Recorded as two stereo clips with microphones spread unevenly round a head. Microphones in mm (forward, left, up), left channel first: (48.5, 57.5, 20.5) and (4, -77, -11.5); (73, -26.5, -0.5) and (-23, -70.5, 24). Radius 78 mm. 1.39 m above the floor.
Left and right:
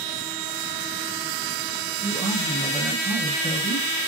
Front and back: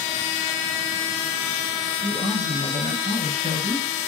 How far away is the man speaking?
About 0.9 m.